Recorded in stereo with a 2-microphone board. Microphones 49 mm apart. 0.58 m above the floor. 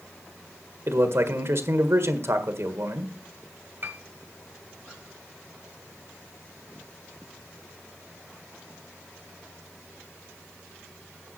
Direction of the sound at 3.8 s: 40° right (ahead or behind).